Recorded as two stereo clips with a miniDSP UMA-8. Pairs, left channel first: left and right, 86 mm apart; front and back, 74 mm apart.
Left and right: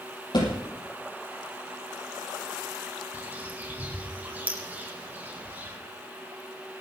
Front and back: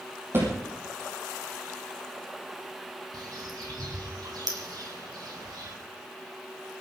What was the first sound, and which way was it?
A thud, 125° left.